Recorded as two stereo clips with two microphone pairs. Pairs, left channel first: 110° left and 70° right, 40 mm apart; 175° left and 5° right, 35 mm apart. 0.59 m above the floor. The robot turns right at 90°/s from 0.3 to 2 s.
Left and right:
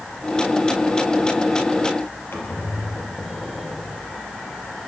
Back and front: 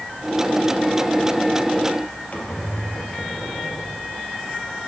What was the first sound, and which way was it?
A squeak, 130° left.